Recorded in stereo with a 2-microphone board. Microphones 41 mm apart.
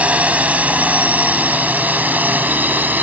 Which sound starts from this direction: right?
A drone, at 0.0 s.